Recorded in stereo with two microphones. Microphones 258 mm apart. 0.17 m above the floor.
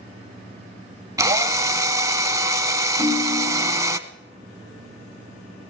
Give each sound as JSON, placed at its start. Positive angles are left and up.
{"t": 1.2, "sound": "a drill", "side_deg": -15, "distance_m": 0.6}
{"t": 3.0, "sound": "a ringtone", "side_deg": 25, "distance_m": 3.0}